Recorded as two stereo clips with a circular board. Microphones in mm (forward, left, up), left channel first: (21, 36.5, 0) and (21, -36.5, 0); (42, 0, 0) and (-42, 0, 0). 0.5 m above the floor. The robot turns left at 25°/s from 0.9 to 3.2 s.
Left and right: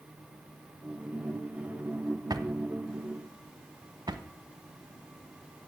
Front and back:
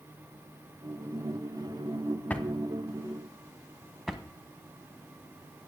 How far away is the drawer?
About 0.8 m.